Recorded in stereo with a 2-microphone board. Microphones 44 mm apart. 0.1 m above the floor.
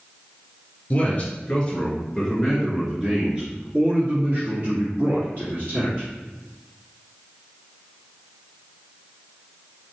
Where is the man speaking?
35° left (ahead or behind), 2.0 m; by 6.1 s 50° right (ahead or behind), 3.5 m.